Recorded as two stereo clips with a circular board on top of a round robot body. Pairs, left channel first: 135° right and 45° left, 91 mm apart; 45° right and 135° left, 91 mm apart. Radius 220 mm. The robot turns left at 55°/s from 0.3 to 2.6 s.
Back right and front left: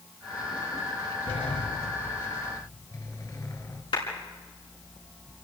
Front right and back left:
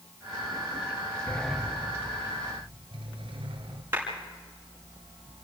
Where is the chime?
I don't hear a chime.